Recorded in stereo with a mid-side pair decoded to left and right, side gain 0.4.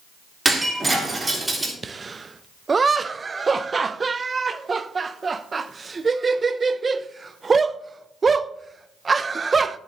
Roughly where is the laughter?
Ahead right.